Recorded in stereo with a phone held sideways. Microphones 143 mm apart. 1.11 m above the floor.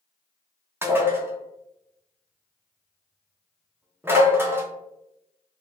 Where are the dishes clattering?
15° right (ahead or behind), 0.6 m.